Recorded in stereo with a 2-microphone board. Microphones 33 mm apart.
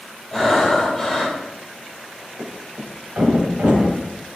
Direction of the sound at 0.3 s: Centre (ahead or behind).